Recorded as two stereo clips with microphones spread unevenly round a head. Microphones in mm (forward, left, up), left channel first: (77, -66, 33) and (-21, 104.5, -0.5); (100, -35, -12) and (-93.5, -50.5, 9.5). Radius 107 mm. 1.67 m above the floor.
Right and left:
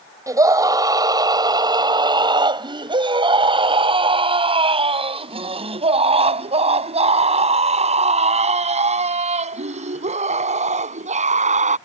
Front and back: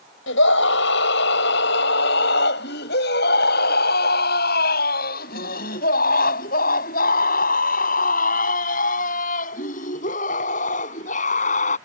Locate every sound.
0.3 s a scream: 45° left; by 11.8 s 65° left